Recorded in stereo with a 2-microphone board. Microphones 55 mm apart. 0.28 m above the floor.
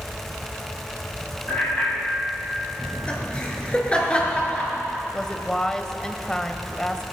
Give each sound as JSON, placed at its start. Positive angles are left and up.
{"t": 1.5, "sound": "a bicycle bell", "side_deg": 30, "distance_m": 6.0}
{"t": 2.8, "sound": "laughter", "side_deg": 25, "distance_m": 4.0}
{"t": 5.1, "sound": "a woman speaking", "side_deg": 15, "distance_m": 1.0}